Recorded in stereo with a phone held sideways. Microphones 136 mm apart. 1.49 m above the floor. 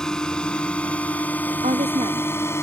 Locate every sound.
0.0 s a drone: 5° left (ahead or behind); by 2.6 s 20° left (ahead or behind)
1.6 s a woman speaking: 55° right (ahead or behind)